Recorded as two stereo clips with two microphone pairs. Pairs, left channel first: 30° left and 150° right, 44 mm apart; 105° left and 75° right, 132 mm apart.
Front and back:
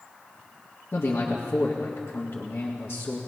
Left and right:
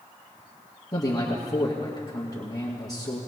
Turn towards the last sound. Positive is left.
turn(degrees=40)